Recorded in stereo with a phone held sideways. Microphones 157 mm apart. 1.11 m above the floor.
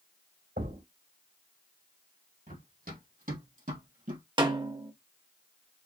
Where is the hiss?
I don't hear a hiss.